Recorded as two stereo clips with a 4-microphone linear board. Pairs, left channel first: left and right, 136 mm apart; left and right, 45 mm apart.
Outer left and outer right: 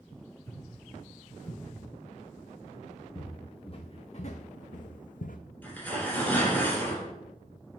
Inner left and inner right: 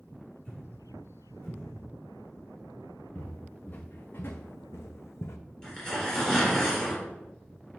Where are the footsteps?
35° left (ahead or behind), 1.4 m; by 5.4 s 80° left, 0.7 m.